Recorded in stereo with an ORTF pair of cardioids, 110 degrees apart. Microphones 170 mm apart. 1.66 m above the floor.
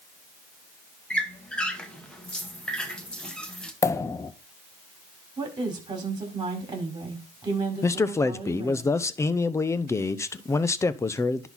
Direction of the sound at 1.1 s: 5° left.